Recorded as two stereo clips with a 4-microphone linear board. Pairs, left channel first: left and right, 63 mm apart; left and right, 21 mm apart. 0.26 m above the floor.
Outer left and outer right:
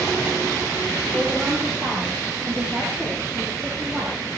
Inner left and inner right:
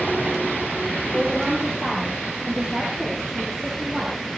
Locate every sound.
1.1 s a woman speaking: 25° right (ahead or behind), 10 m; by 4.2 s 5° right (ahead or behind), 8.5 m